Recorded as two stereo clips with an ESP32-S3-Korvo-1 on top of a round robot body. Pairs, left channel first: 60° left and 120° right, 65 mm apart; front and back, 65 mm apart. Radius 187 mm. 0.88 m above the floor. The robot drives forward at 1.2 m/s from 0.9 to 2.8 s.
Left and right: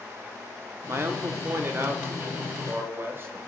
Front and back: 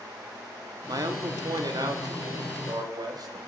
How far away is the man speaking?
About 3 m.